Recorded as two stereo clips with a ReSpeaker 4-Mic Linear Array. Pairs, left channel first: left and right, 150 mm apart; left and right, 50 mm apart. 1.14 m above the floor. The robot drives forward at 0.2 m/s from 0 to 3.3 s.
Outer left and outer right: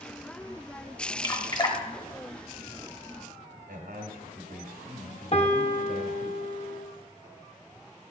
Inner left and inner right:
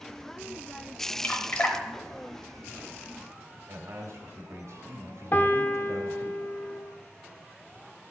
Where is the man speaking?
80° right, 1.5 m.